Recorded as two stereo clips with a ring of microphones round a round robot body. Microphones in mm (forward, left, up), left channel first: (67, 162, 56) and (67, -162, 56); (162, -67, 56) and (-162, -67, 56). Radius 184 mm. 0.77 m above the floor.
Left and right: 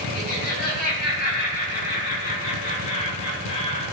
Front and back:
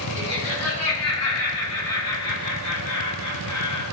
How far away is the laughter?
About 5 m.